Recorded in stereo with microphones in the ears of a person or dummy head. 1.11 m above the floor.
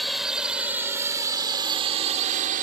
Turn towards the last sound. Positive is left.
turn(degrees=-45)  # may be behind; listen again after turning